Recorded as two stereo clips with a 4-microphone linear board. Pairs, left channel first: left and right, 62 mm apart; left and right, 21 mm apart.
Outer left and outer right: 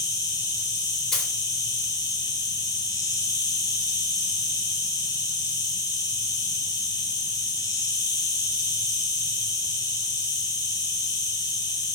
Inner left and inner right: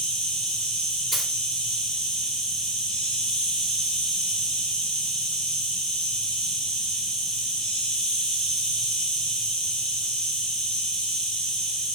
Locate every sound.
0.0 s an insect: 75° left (ahead or behind), 1.3 m
1.1 s a dropped coin: 5° left (ahead or behind), 1.2 m